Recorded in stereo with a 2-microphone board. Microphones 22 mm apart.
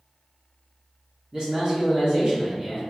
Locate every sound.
1.3 s a man speaking: 40° right (ahead or behind), 1.0 m